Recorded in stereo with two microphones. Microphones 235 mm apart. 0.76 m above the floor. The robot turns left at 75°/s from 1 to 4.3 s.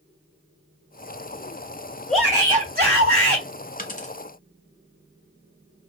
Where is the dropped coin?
40° left (ahead or behind), 0.7 m; by 4.2 s 30° left (ahead or behind), 0.7 m.